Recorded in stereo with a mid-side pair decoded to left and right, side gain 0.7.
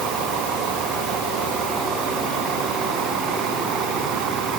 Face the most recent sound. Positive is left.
No sound to turn to.